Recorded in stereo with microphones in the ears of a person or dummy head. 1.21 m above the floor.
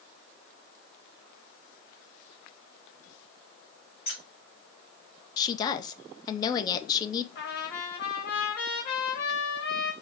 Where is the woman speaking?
20° left (ahead or behind), 0.7 m.